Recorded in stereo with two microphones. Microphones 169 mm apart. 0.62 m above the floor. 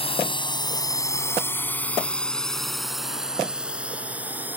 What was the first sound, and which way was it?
A drone, 35° left (ahead or behind).